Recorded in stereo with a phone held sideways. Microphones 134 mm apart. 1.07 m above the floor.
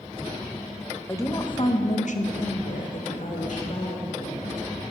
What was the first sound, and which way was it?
A woman speaking, 20° left (ahead or behind).